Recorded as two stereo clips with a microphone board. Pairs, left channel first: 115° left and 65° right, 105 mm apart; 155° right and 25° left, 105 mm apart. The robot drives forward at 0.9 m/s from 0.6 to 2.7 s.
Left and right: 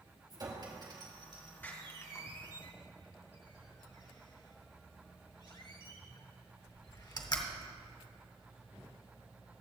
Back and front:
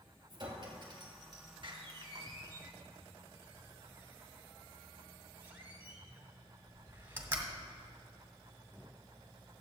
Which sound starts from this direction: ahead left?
A door slam, at 1.6 s.